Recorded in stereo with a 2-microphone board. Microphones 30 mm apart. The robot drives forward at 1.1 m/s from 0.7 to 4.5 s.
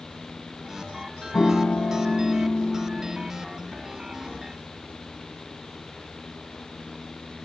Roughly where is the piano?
Left.